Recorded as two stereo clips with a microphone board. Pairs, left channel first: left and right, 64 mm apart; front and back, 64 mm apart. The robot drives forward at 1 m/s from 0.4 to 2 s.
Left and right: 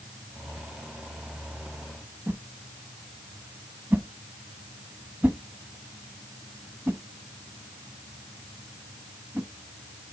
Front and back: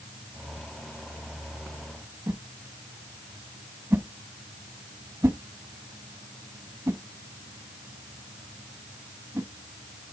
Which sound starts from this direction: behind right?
A whoosh, at 2.3 s.